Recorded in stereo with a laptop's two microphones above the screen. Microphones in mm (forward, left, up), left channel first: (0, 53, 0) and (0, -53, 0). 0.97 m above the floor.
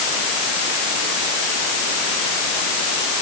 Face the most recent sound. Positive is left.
No sound to turn to.